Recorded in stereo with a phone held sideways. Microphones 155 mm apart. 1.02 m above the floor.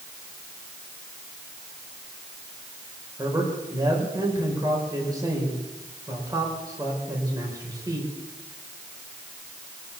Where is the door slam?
I don't hear a door slam.